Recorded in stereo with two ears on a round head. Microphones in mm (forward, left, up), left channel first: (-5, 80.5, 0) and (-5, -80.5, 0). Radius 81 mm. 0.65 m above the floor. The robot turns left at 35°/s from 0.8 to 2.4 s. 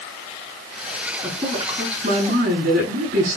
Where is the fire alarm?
I don't hear a fire alarm.